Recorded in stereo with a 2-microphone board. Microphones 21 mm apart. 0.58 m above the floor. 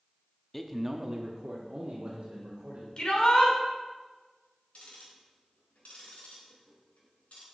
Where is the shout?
45° left (ahead or behind), 2.5 m.